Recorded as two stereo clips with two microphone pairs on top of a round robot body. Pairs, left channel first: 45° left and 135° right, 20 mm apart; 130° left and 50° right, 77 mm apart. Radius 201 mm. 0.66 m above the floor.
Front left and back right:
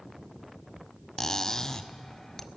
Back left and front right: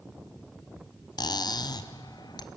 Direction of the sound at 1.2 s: 105° left.